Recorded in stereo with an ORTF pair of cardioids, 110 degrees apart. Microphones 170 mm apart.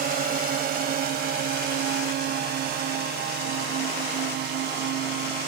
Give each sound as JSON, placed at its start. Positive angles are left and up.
{"t": 0.0, "sound": "a drone", "azimuth_deg": -60}